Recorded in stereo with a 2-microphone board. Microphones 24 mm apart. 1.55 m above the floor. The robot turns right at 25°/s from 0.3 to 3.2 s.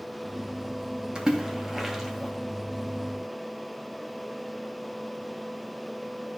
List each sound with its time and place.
1.1 s a splash: 35° right (ahead or behind), 2 m; by 2.3 s 5° right (ahead or behind), 2 m